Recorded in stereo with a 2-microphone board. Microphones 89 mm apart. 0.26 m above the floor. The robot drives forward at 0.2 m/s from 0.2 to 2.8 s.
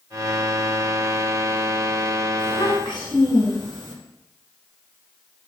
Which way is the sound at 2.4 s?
60° left (ahead or behind).